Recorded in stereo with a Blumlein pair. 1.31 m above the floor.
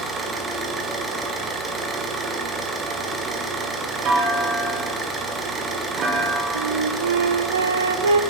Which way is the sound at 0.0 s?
15° right.